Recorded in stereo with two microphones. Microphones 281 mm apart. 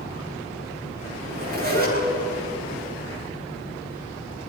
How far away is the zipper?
About 10 m.